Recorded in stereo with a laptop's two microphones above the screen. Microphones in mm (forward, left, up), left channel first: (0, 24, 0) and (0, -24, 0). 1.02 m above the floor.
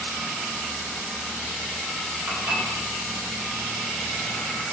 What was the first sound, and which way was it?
Dishes clattering, 60° right (ahead or behind).